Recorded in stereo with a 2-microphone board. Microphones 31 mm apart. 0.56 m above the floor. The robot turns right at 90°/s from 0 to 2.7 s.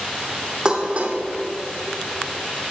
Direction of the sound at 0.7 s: 20° right (ahead or behind).